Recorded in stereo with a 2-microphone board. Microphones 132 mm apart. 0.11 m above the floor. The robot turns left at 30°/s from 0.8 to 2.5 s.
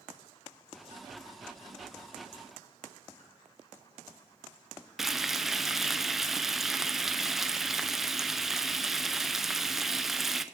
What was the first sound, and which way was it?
Frying, centre (ahead or behind).